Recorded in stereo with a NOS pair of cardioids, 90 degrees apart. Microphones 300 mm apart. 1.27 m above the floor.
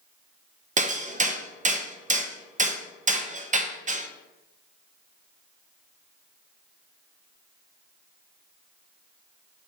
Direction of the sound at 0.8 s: 25° right.